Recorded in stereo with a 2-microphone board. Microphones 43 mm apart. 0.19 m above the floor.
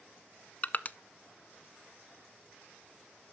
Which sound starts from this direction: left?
Crushing, at 0.6 s.